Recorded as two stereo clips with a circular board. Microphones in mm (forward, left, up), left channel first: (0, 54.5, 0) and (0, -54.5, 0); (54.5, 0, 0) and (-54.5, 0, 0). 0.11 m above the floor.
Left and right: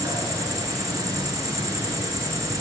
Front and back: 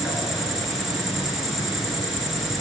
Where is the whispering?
I don't hear whispering.